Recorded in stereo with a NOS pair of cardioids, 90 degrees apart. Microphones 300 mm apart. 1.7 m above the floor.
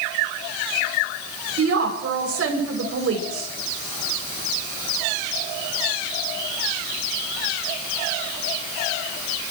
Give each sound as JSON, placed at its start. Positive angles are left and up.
{"t": 1.6, "sound": "a woman speaking", "azimuth_deg": -50, "distance_m": 7.0}